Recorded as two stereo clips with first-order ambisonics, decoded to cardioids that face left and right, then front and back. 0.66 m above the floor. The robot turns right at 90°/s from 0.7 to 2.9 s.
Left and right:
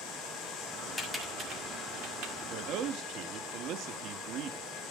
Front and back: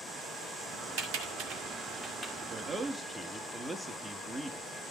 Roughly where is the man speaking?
Behind right.